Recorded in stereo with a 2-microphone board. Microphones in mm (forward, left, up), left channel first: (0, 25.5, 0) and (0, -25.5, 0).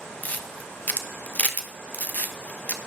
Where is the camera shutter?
30° left (ahead or behind), 0.9 m.